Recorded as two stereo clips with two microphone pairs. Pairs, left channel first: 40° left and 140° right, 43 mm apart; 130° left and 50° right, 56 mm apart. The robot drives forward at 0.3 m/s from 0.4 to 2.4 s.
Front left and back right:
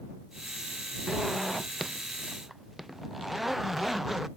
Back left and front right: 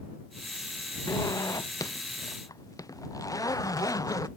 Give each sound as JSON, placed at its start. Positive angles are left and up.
{"t": 1.1, "sound": "a zipper", "azimuth_deg": 130}